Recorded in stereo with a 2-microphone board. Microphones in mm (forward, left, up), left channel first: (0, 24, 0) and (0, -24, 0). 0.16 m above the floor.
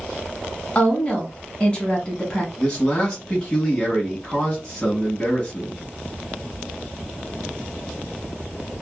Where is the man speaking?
15° left (ahead or behind), 1.1 m.